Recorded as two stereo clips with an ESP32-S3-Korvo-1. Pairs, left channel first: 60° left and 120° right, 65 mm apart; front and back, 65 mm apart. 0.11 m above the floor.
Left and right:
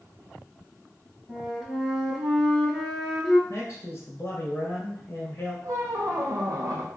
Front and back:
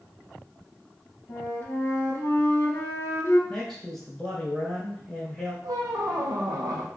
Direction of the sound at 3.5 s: 75° left.